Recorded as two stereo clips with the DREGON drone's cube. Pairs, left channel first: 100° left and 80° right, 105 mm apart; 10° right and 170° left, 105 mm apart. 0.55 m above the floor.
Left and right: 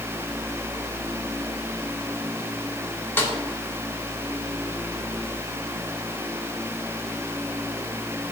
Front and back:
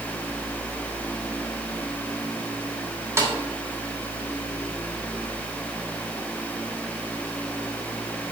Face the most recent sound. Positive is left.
turn(degrees=140)